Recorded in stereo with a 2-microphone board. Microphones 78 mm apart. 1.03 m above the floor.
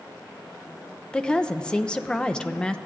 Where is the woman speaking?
10° left (ahead or behind), 0.5 m.